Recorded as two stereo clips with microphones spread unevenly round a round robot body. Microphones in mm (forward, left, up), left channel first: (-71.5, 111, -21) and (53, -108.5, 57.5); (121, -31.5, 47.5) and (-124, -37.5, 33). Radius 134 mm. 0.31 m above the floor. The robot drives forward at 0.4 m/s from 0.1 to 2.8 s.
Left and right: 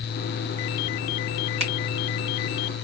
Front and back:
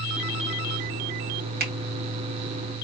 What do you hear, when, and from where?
1.6 s a finger snap: 135° right, 2 m; by 1.7 s 140° right, 2 m